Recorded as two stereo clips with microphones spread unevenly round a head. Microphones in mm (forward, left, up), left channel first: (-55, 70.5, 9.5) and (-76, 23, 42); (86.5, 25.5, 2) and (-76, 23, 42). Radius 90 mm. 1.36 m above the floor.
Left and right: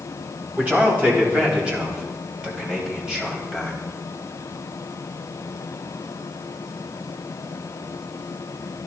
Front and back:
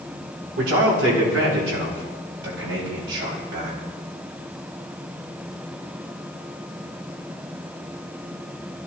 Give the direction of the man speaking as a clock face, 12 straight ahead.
6 o'clock.